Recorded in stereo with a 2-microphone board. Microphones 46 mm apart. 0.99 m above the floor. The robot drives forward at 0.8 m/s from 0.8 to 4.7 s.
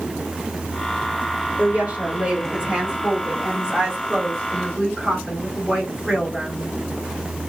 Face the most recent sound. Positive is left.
turn(degrees=-15)  # may be behind; listen again after turning